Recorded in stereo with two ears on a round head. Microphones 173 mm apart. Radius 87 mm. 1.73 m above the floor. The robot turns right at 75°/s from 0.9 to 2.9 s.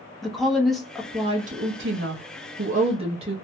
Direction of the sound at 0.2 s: Straight behind.